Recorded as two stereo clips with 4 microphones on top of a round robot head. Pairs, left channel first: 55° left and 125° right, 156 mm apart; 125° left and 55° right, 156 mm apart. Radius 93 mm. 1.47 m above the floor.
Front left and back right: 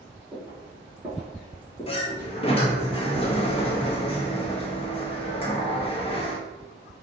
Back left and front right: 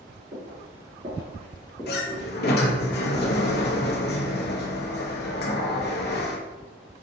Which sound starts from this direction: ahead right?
Footsteps, at 0.3 s.